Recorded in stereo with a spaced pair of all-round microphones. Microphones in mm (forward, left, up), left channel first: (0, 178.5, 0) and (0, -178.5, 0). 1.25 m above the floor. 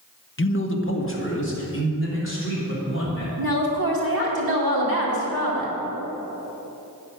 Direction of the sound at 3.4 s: 80° right.